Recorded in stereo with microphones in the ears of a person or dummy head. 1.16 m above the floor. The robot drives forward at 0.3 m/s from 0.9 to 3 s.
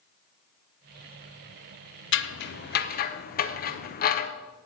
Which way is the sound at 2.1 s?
50° left (ahead or behind).